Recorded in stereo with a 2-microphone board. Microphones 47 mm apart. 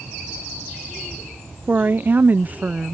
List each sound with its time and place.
1.7 s a woman speaking: 35° right (ahead or behind); by 3.0 s 25° right (ahead or behind)